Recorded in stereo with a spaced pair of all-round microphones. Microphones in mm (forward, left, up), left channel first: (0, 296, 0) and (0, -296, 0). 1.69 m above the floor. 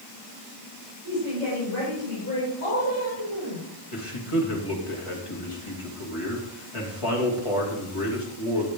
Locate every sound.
1.0 s a woman speaking: 55° right (ahead or behind), 6.5 m; by 3.7 s 35° right (ahead or behind), 6 m
3.9 s a man speaking: 60° left (ahead or behind), 3 m